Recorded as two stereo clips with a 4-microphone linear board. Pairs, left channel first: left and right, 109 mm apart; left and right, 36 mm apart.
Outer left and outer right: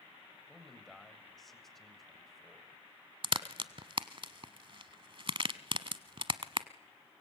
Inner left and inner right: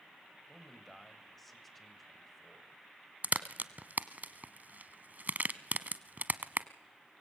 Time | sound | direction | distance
0.5 | a man speaking | centre (ahead or behind) | 3 m
3.2 | a crack | 50° right (ahead or behind) | 0.9 m